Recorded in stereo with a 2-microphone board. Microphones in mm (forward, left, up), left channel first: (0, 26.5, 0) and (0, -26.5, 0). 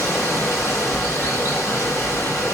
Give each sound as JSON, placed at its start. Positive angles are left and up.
{"t": 0.0, "sound": "running water", "side_deg": 50, "distance_m": 3.0}